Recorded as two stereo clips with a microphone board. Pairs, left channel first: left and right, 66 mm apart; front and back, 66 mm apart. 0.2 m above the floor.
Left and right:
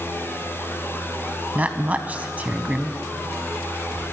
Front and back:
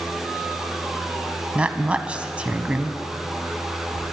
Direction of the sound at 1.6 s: 125° right.